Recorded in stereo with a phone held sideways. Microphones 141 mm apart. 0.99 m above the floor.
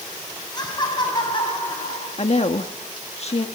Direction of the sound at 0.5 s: 30° left (ahead or behind).